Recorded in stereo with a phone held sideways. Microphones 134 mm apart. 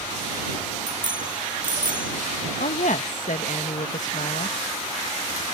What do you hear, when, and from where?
0.9 s a bicycle bell: 90° right
2.6 s a woman speaking: 75° left (ahead or behind)